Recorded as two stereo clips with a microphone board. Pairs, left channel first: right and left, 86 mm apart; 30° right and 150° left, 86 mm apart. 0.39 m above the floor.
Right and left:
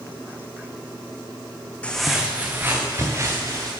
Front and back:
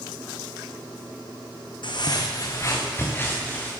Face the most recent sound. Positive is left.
turn(degrees=40)